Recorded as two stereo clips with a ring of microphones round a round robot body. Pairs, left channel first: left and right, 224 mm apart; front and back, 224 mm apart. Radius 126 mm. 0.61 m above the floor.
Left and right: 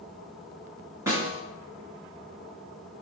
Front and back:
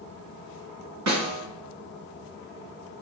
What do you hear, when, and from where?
1.1 s a snare drum: 170° right, 2 m